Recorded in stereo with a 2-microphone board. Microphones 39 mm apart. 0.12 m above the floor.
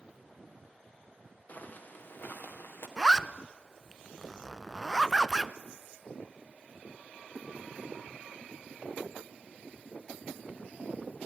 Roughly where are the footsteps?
Left.